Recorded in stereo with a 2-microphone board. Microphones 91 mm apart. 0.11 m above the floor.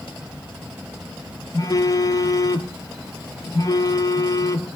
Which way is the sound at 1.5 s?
45° left (ahead or behind).